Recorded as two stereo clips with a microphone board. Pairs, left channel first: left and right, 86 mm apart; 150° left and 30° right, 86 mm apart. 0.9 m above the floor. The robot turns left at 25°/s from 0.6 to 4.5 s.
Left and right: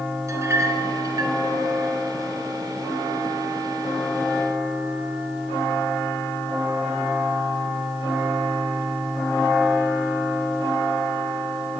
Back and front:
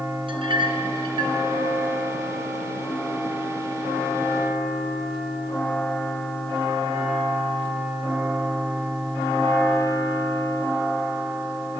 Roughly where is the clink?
Ahead right.